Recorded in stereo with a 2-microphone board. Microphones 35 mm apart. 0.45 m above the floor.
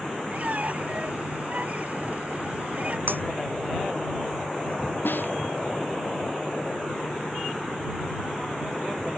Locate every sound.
0.3 s a squeak: 45° right (ahead or behind)
3.1 s breaking glass: 80° right
5.0 s a snare drum: 75° left (ahead or behind)